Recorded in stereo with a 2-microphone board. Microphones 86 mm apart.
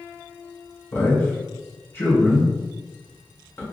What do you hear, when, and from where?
0.9 s a man speaking: 35° left (ahead or behind), 1.9 m